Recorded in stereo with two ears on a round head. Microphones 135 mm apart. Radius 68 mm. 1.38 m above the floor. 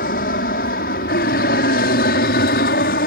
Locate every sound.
0.0 s an aircraft: 65° left (ahead or behind); by 3.1 s 70° left (ahead or behind)